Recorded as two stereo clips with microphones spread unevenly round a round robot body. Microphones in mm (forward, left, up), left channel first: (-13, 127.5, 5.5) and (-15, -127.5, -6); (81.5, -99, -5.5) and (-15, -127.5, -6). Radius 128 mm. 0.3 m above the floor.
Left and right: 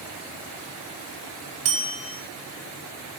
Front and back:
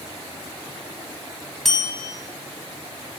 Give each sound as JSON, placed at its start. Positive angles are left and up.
{"t": 1.6, "sound": "a bell", "azimuth_deg": -70, "distance_m": 1.9}